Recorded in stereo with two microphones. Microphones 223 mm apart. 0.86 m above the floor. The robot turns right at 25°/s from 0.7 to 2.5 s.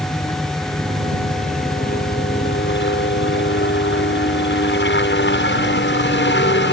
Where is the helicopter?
20° left; by 6.7 s 65° left.